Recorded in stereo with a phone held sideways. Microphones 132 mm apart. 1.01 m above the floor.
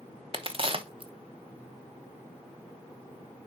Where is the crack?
40° right (ahead or behind), 0.8 m.